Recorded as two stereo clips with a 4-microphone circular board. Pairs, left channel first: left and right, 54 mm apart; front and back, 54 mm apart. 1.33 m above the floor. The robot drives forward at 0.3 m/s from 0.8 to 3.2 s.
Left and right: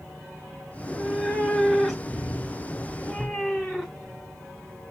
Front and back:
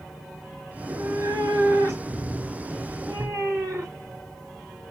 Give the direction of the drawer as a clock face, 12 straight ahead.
I don't hear a drawer.